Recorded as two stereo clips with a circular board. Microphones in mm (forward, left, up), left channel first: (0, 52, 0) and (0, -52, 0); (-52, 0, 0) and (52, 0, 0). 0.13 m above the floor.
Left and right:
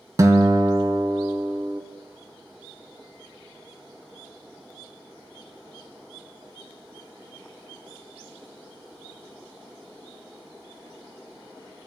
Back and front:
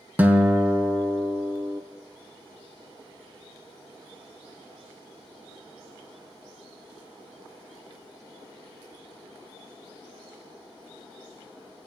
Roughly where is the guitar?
Ahead right.